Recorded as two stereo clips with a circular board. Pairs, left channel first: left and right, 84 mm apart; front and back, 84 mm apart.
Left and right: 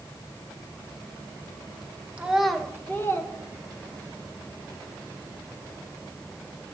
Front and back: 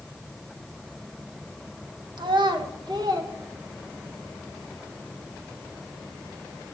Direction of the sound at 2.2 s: 165° right.